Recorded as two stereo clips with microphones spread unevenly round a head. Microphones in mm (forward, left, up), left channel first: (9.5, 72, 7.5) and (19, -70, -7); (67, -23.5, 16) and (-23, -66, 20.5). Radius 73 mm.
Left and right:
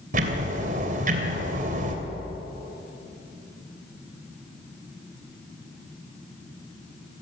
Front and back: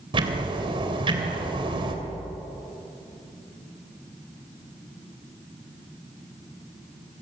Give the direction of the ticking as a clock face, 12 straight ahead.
4 o'clock.